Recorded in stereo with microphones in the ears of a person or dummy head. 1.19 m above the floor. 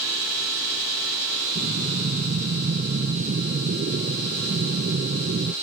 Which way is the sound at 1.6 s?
35° right (ahead or behind).